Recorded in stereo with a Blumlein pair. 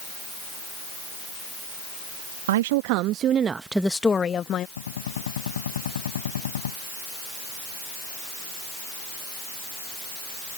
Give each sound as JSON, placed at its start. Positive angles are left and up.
{"t": 2.5, "sound": "a woman speaking", "azimuth_deg": -55}
{"t": 4.8, "sound": "a gunshot", "azimuth_deg": 65}